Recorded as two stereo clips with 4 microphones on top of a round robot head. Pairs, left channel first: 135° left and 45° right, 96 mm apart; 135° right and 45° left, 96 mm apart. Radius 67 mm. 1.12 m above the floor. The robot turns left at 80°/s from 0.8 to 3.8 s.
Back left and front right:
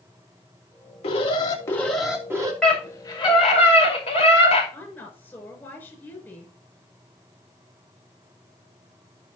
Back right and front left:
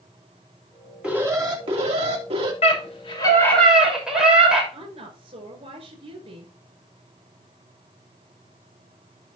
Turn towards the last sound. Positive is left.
turn(degrees=70)